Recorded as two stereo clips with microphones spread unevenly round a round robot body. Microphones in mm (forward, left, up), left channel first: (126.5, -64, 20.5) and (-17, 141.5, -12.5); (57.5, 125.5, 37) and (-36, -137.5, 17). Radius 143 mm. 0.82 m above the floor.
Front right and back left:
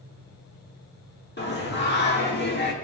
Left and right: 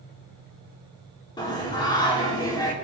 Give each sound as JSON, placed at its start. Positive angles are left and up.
{"t": 1.4, "sound": "singing", "azimuth_deg": -5, "distance_m": 2.5}